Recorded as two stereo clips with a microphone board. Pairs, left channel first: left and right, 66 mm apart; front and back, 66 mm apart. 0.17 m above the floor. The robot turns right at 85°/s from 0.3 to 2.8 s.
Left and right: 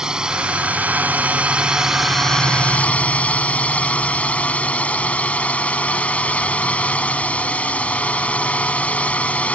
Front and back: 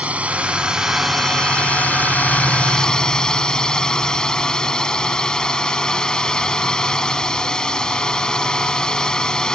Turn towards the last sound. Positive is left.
turn(degrees=60)